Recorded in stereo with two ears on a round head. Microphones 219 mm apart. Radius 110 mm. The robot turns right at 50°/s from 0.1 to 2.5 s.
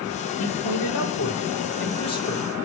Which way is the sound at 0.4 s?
70° left.